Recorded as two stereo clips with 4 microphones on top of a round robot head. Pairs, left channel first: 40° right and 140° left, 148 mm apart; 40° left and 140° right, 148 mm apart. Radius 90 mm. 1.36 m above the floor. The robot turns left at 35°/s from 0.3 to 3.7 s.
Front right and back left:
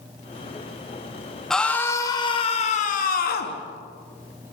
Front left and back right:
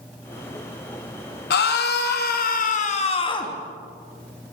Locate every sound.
1.5 s a scream: 45° left, 3 m; by 3.6 s 25° right, 3 m